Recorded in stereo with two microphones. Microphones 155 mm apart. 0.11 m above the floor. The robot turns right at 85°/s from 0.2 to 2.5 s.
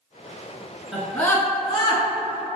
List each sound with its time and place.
0.9 s a scream: 5° right (ahead or behind), 1.2 m; by 2.0 s 35° left (ahead or behind), 1.2 m